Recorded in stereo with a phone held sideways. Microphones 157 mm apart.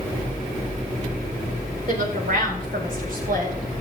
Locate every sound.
1.9 s a woman speaking: 70° right (ahead or behind), 4 m; by 3.5 s 75° right (ahead or behind), 5.5 m